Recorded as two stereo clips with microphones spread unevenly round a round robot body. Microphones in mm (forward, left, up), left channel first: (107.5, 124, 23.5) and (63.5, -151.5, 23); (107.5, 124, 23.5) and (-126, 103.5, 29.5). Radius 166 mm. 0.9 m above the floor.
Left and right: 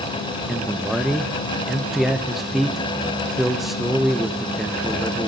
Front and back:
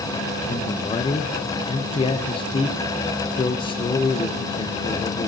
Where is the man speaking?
10° right, 0.6 m.